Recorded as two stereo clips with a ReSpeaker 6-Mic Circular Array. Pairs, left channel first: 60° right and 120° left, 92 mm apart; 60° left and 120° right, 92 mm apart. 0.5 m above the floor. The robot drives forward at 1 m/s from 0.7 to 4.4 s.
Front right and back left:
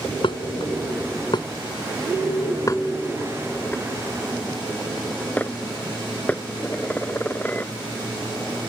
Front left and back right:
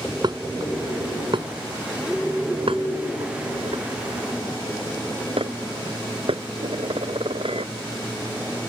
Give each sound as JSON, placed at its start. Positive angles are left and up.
{"t": 0.2, "sound": "dishes clattering", "azimuth_deg": -85}